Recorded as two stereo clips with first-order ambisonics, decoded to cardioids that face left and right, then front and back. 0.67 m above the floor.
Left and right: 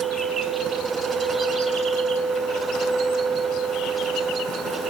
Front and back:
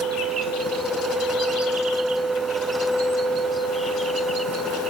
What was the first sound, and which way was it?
Only background noise.